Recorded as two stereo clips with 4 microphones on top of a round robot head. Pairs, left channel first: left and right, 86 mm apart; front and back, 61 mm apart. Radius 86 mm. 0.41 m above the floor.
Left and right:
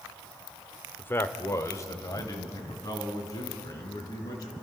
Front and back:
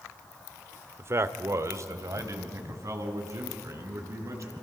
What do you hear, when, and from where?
1.0 s a man speaking: 155° left, 1.0 m; by 4.5 s 140° left, 5.5 m